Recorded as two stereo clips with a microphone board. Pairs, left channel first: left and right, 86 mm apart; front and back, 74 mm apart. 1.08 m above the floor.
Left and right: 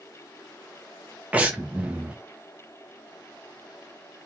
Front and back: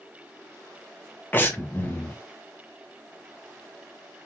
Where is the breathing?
35° right, 0.7 m.